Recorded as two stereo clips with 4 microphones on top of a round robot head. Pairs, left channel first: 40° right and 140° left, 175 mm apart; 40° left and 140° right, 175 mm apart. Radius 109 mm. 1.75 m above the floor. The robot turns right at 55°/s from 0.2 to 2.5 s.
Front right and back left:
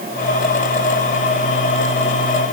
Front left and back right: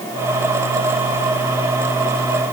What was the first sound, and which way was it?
Only background noise.